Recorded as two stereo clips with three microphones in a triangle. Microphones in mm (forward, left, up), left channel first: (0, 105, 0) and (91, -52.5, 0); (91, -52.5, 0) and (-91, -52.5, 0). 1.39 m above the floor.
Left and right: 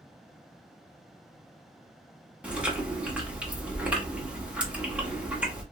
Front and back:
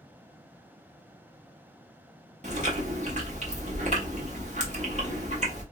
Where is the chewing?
140° right, 1.3 m.